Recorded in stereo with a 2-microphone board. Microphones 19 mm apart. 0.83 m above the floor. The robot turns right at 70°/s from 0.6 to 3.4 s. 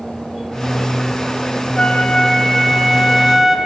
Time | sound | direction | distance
1.8 | a flute | 90° left | 0.7 m